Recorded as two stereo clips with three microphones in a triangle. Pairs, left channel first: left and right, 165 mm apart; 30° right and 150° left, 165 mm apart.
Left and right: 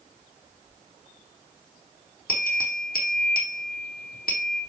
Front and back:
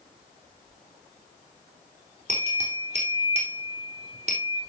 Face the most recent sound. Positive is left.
turn(degrees=105)